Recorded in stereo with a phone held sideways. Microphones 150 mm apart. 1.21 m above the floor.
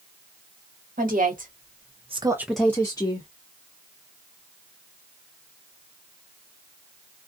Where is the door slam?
No door slam in this recording.